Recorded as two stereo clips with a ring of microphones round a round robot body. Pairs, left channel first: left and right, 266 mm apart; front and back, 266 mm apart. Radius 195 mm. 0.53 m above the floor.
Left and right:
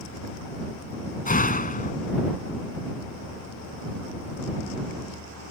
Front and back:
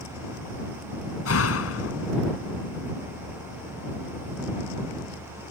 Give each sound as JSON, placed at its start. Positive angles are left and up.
{"t": 1.2, "sound": "a door slam", "azimuth_deg": 30}